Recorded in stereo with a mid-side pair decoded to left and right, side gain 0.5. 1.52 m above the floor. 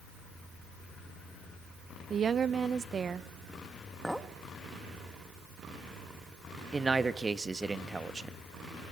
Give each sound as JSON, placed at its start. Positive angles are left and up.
{"t": 2.1, "sound": "a woman speaking", "azimuth_deg": -45, "distance_m": 1.1}
{"t": 4.0, "sound": "a clink", "azimuth_deg": 0, "distance_m": 1.7}
{"t": 6.7, "sound": "a man speaking", "azimuth_deg": -25, "distance_m": 1.7}